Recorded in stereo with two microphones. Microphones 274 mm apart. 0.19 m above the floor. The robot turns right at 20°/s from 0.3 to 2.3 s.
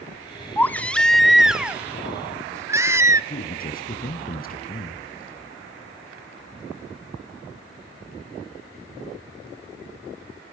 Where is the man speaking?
35° left (ahead or behind), 1.9 m.